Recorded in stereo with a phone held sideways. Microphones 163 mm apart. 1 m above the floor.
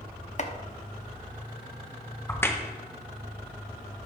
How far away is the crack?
About 0.7 m.